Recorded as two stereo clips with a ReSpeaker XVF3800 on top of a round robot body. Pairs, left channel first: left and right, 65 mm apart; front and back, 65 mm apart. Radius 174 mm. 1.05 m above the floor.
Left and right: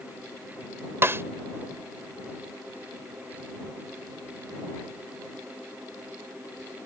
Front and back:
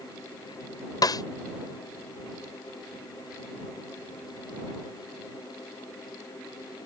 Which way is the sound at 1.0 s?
30° right.